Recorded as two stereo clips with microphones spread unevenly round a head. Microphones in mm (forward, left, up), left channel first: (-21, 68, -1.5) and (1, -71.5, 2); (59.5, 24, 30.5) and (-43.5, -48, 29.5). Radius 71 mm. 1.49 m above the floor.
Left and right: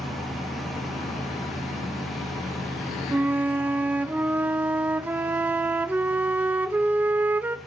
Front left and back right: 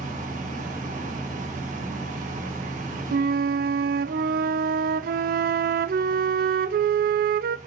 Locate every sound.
0.0 s a fan: 170° right, 2.5 m
3.1 s a flute: 160° right, 0.7 m